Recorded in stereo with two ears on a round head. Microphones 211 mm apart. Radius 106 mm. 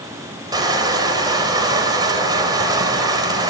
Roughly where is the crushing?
Centre.